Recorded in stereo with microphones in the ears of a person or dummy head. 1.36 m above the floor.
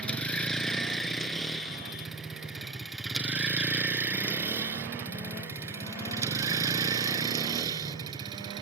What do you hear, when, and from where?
0.0 s a vehicle: 5° left (ahead or behind); by 8.6 s 25° right (ahead or behind)